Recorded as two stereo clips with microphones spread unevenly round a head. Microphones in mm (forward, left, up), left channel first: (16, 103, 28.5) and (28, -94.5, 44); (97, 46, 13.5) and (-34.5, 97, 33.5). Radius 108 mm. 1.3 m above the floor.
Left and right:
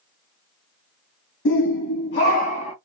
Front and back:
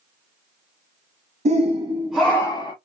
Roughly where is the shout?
Behind left.